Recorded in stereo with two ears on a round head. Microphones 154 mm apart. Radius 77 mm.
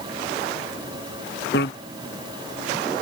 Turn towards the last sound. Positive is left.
turn(degrees=70)  # may be behind; listen again after turning